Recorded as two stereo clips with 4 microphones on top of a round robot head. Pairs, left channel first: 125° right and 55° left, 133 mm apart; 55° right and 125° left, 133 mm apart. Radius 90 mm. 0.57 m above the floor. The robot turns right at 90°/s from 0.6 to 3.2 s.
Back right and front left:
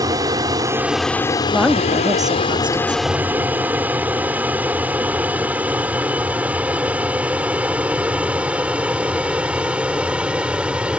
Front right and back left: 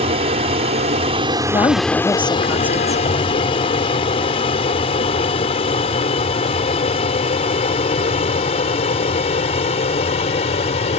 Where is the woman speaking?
45° right; by 3.0 s 90° left.